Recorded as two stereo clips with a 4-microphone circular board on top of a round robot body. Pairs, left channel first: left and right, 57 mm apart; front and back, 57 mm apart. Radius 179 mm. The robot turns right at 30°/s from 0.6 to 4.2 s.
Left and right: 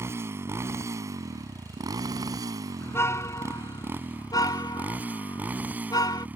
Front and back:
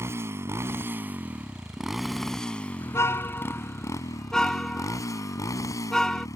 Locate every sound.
0.0 s a motorcycle: 135° right; by 6.4 s 25° right
2.8 s a car horn: 40° left; by 6.3 s 80° left